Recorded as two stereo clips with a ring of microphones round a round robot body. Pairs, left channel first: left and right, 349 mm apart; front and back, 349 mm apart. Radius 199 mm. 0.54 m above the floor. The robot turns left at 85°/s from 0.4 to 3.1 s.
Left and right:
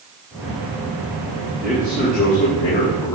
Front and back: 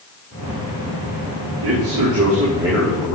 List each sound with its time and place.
1.6 s a man speaking: 175° right, 3 m; by 3.1 s 60° left, 3 m